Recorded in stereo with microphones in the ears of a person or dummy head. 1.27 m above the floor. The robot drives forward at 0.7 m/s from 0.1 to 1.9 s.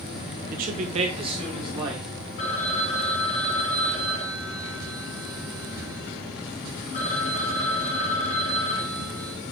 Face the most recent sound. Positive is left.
turn(degrees=50)  # may be behind; listen again after turning